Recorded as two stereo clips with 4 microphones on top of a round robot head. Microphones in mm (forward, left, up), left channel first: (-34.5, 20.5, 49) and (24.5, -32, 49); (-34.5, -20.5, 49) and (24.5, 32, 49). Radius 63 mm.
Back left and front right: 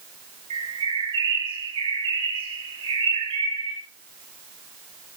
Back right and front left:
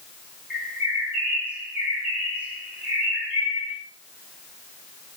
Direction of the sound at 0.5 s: 35° right.